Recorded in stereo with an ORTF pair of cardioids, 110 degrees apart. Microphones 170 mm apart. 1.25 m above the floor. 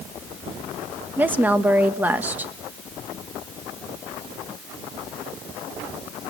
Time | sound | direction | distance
1.2 | a woman speaking | 10° right | 1.5 m